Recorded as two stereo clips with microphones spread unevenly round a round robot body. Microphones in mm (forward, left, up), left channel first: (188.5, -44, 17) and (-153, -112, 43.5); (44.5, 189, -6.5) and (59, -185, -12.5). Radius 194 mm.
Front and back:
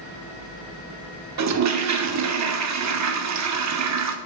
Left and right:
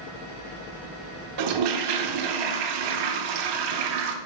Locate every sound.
1.4 s a toilet flushing: 120° right, 0.9 m